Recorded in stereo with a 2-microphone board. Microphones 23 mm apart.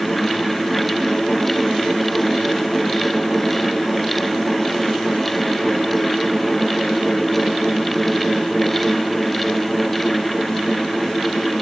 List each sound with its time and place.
Only background noise.